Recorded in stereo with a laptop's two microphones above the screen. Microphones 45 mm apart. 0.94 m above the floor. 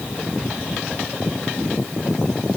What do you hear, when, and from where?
Only background noise.